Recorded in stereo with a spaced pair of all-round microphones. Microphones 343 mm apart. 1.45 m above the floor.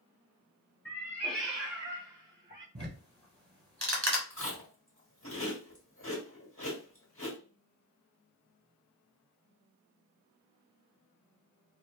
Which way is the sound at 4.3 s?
35° left (ahead or behind).